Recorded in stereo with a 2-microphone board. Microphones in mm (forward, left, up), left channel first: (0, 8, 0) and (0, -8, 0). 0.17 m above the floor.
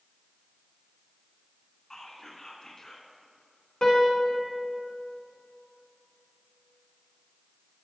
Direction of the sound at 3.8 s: 50° left (ahead or behind).